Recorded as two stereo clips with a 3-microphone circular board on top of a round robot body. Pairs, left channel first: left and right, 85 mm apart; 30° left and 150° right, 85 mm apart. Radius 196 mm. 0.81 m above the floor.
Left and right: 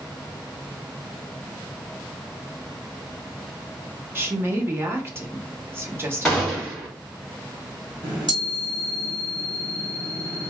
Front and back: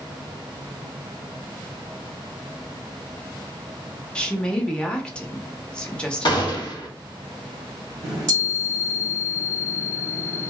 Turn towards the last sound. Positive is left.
turn(degrees=-105)